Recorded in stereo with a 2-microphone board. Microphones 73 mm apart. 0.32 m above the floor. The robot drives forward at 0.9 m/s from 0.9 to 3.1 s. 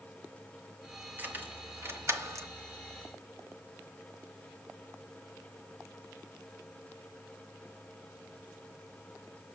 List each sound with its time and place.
1.2 s keys jangling: 25° right (ahead or behind), 1.7 m; by 2.5 s 45° right (ahead or behind), 1.0 m